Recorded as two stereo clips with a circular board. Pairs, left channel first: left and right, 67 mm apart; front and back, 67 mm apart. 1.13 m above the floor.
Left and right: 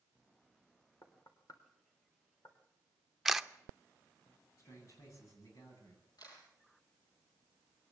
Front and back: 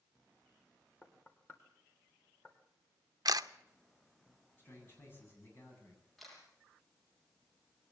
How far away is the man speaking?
About 9 m.